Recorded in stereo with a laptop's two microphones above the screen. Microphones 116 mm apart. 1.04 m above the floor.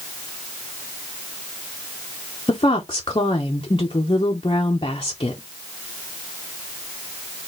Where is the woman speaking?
45° left (ahead or behind), 0.7 m.